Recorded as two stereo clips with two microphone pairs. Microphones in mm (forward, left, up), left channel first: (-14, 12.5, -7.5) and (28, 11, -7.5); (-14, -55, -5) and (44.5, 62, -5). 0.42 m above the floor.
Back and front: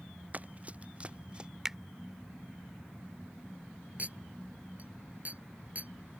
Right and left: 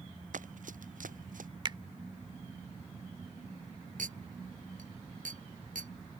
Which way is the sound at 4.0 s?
50° left.